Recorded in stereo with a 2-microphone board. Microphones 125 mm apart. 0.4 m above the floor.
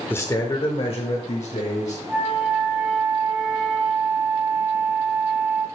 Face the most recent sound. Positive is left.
turn(degrees=-10)  # may be behind; listen again after turning